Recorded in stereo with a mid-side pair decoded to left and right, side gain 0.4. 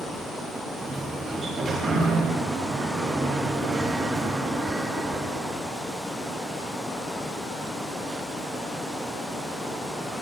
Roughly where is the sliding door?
Ahead right.